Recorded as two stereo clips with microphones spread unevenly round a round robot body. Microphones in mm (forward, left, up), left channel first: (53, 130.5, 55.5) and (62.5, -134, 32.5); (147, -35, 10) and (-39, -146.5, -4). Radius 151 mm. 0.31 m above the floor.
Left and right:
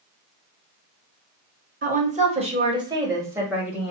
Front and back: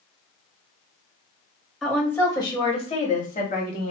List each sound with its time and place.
1.8 s a woman speaking: 60° right, 1.1 m; by 3.9 s 5° right, 1.6 m